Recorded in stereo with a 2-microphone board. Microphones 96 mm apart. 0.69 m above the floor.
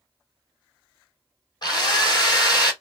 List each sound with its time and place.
1.6 s a drill: 50° left (ahead or behind), 3 m